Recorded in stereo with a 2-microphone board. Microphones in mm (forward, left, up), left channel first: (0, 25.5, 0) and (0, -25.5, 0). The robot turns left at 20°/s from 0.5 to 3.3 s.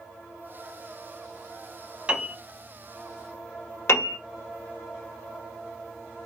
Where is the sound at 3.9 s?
60° left (ahead or behind), 1.0 m.